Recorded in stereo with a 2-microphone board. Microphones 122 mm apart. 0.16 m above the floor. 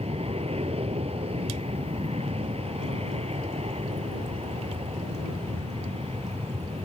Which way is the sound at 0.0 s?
55° right (ahead or behind).